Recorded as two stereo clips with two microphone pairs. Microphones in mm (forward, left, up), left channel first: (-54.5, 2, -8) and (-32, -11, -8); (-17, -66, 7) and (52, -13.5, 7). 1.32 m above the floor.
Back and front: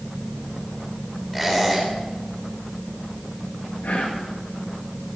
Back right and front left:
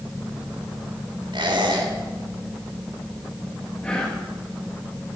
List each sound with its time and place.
1.3 s a squeak: 60° left, 4 m
3.8 s whispering: 140° left, 1.5 m